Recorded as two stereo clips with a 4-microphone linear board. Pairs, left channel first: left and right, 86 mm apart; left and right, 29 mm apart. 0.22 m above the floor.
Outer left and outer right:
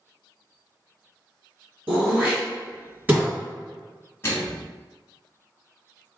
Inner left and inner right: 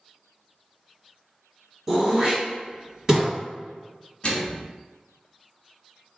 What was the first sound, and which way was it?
Throat clearing, 20° right (ahead or behind).